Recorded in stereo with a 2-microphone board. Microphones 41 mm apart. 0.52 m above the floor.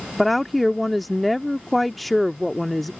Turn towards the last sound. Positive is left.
turn(degrees=0)  # may be behind; listen again after turning